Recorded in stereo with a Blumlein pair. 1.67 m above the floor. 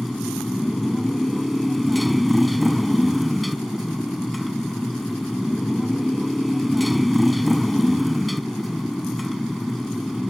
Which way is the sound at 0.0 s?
5° left.